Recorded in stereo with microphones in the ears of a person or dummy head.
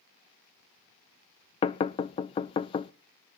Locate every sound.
1.6 s knocking: 25° left (ahead or behind), 0.6 m